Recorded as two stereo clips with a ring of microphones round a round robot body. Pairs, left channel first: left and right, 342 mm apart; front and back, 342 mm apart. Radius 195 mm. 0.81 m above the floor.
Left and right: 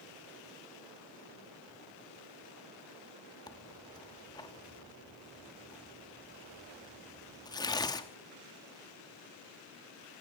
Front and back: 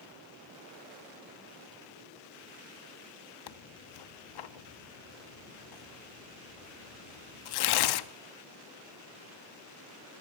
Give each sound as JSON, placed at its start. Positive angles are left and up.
{"t": 3.5, "sound": "tearing paper", "azimuth_deg": 10, "distance_m": 1.1}